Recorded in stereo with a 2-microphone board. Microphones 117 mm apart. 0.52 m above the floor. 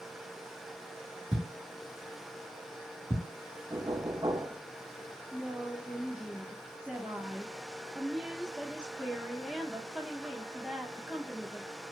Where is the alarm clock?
I don't hear an alarm clock.